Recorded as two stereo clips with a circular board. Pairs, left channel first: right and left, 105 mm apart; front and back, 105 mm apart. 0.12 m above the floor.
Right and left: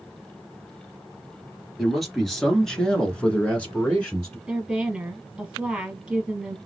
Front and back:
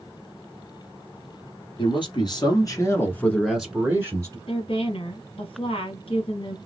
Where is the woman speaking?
5° left, 2.5 m.